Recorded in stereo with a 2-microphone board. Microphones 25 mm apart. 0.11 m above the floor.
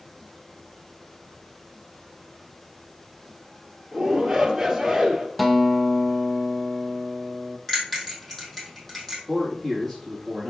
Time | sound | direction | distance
3.9 | a shout | 10° right (ahead or behind) | 2.5 m
5.4 | a guitar | centre (ahead or behind) | 0.9 m
7.7 | a bell | 5° left (ahead or behind) | 2.5 m
9.3 | a man speaking | 10° left (ahead or behind) | 4.5 m